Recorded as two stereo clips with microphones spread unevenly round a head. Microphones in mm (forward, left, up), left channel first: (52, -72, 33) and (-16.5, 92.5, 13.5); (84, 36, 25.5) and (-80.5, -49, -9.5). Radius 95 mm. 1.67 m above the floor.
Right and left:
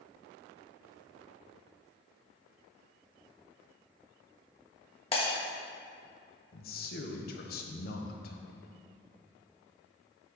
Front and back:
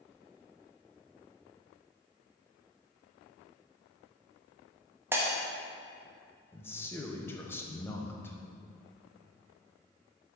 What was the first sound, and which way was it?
Breaking glass, 70° right.